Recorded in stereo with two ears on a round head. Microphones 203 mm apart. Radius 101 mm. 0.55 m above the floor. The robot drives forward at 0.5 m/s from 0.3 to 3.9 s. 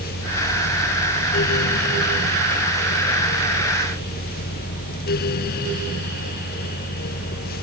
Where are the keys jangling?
I don't hear keys jangling.